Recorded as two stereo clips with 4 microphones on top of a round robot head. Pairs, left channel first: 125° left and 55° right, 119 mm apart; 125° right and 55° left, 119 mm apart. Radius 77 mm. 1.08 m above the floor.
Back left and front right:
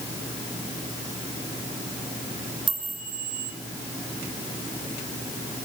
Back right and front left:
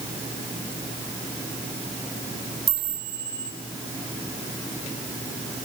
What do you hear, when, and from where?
2.7 s a chime: 5° right, 5.5 m